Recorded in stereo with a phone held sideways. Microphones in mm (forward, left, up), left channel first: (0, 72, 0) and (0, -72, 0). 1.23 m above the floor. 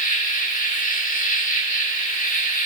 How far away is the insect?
About 1.7 m.